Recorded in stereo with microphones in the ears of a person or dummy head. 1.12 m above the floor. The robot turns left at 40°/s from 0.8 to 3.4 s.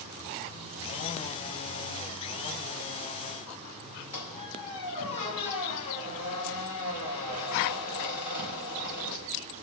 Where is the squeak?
30° left (ahead or behind), 2.5 m.